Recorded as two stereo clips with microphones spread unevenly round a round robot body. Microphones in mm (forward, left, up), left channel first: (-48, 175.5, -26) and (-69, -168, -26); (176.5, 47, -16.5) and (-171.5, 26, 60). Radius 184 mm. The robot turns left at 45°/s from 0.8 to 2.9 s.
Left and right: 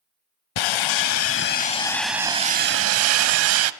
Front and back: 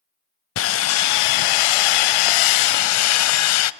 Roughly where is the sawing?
Ahead left.